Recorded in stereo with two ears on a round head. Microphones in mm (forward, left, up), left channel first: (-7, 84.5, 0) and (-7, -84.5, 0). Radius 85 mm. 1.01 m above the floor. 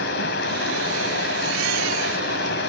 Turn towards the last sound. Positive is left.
turn(degrees=60)  # may be behind; listen again after turning